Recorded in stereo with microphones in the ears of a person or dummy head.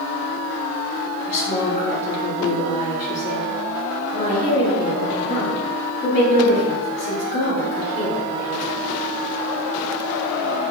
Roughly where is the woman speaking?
Left.